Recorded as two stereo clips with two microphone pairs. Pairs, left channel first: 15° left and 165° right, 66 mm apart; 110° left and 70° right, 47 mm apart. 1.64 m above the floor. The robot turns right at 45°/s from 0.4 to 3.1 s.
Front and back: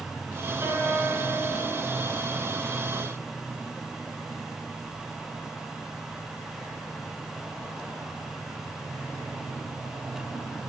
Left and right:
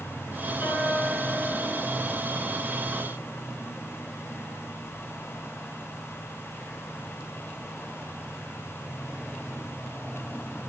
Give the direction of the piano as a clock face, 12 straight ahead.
7 o'clock.